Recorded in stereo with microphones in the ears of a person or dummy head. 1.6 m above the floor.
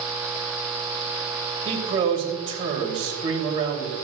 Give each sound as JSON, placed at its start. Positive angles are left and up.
{"t": 1.6, "sound": "a man speaking", "side_deg": -30, "distance_m": 3.0}